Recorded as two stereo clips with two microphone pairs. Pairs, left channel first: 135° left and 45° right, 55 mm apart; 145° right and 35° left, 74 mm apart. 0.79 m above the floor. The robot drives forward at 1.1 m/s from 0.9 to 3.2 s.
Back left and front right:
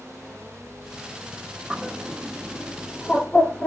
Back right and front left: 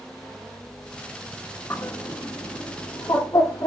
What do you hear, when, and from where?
1.7 s a bird: 105° right, 0.9 m; by 3.7 s 160° right, 2 m